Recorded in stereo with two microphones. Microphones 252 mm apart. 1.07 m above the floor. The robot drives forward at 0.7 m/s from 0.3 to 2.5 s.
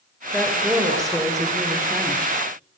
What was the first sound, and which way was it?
A woman speaking, centre (ahead or behind).